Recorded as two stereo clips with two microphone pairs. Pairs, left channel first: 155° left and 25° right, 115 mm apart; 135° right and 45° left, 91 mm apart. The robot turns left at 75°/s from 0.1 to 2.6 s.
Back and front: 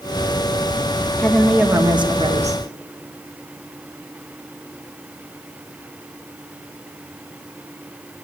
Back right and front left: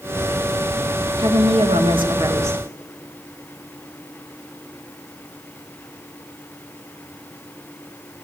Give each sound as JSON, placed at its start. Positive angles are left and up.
{"t": 1.2, "sound": "a woman speaking", "azimuth_deg": 80, "distance_m": 1.7}